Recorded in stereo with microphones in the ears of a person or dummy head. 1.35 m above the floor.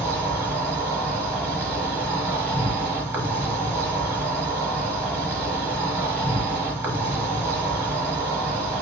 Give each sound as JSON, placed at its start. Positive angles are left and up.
{"t": 0.0, "sound": "an insect", "side_deg": -15, "distance_m": 1.1}